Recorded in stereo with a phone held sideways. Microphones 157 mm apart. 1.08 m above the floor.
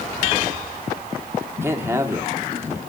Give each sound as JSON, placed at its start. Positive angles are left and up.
{"t": 1.6, "sound": "a man speaking", "side_deg": -15, "distance_m": 2.0}